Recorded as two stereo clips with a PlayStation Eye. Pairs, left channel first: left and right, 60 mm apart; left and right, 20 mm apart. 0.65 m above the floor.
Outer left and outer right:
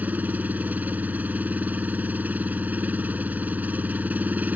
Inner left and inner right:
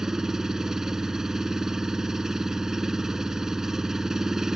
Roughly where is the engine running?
Right.